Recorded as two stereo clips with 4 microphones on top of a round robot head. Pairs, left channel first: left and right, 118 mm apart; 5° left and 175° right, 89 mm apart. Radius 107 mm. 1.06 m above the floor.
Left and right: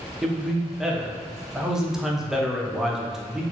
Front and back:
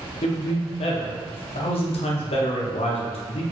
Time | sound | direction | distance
0.2 | a man speaking | 5° right | 0.6 m